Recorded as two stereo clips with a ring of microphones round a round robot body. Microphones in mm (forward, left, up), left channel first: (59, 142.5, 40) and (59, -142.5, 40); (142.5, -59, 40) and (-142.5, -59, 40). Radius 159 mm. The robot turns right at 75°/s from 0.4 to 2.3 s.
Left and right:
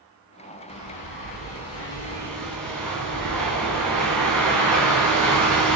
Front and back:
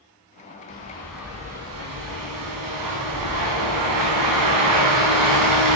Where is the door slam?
I don't hear a door slam.